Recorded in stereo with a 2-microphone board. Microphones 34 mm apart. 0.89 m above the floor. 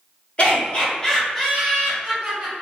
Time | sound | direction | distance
0.4 | laughter | 35° left (ahead or behind) | 1.1 m